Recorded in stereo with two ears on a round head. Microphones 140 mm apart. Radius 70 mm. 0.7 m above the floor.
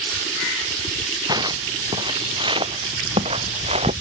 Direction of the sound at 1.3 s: 25° right (ahead or behind).